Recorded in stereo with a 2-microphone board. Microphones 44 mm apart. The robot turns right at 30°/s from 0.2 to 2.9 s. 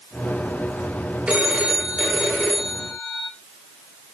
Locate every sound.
1.3 s a phone ringing: 30° right, 3 m; by 3.3 s 20° left, 3 m